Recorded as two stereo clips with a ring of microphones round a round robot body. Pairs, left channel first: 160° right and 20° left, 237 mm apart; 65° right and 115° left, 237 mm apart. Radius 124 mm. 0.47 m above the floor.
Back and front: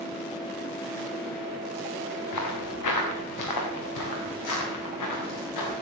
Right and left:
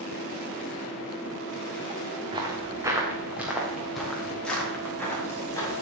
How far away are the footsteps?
About 3 m.